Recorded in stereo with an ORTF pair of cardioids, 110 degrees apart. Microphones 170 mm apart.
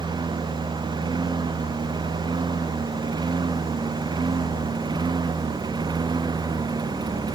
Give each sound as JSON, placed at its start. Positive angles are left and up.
{"t": 0.0, "sound": "a lawn mower", "azimuth_deg": -25}